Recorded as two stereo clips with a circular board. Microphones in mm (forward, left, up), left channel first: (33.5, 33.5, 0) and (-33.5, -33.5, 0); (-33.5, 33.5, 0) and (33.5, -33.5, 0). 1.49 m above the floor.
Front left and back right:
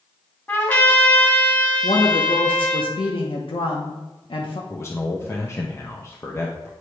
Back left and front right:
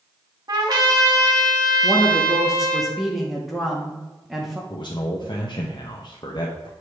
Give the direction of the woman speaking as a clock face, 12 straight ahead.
11 o'clock.